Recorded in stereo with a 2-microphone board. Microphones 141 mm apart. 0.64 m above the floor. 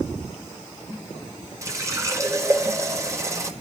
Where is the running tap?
25° right (ahead or behind), 1.5 m.